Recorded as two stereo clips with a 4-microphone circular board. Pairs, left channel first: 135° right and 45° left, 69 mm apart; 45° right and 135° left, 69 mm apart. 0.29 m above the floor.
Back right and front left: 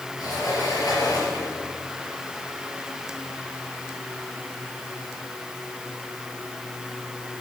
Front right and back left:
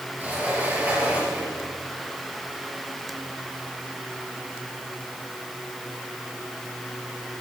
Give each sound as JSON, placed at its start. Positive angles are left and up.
{"t": 0.2, "sound": "a sliding door", "azimuth_deg": -155, "distance_m": 4.5}